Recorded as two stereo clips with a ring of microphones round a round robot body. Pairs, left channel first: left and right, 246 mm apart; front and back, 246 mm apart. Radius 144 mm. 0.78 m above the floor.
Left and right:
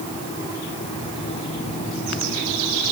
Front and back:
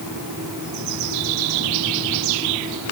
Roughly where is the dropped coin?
I don't hear a dropped coin.